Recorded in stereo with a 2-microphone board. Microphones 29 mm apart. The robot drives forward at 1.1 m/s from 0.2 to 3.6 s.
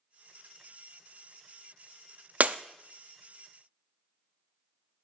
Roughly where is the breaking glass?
Right.